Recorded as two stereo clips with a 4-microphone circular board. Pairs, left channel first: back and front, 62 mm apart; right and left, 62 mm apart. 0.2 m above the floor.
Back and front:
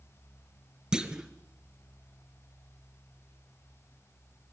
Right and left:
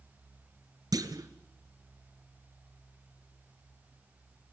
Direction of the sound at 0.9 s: 75° left.